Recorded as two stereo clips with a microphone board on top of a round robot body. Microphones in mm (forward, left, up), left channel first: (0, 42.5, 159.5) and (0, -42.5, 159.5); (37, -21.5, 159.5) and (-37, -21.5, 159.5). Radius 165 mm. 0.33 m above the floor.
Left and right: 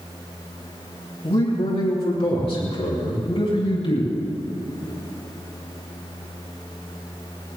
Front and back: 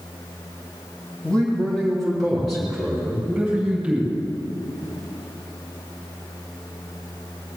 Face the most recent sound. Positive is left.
turn(degrees=100)